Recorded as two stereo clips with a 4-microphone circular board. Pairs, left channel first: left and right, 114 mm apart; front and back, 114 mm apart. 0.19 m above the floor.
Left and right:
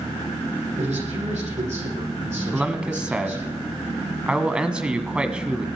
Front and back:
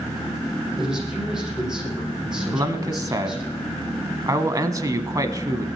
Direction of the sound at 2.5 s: 165° right.